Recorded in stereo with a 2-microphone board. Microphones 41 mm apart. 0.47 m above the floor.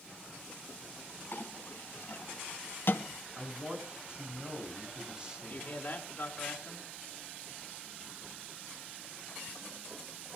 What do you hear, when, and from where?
1.3 s a clink: 60° left (ahead or behind), 3 m
3.4 s a man speaking: 20° right (ahead or behind), 6 m
5.4 s a man speaking: 40° left (ahead or behind), 4.5 m